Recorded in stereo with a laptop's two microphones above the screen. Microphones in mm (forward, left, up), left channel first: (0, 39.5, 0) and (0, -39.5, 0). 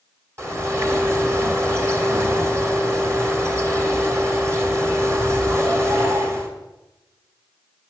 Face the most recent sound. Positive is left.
turn(degrees=-35)  # may be behind; listen again after turning